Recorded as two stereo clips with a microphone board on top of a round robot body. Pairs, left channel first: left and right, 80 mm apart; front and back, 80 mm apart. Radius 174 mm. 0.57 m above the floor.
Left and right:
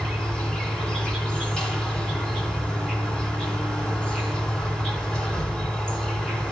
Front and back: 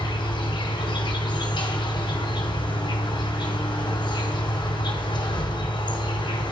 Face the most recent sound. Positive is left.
turn(degrees=10)